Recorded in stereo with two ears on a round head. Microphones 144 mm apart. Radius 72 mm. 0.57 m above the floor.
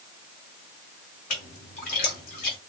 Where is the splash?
55° left (ahead or behind), 2.5 m.